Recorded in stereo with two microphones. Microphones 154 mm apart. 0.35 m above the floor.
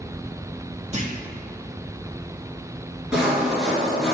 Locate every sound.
0.9 s a clunk: 45° right (ahead or behind), 1.7 m
3.1 s sawing: 5° right (ahead or behind), 2 m